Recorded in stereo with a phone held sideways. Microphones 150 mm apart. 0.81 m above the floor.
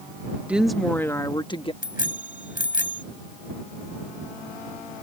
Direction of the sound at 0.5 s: 10° right (ahead or behind).